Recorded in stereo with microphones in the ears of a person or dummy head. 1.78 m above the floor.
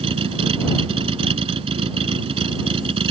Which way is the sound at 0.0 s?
25° right (ahead or behind).